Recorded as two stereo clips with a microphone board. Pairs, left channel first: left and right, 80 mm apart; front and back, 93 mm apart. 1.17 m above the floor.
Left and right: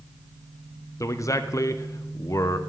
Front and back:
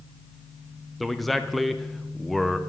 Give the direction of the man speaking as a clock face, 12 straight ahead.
9 o'clock.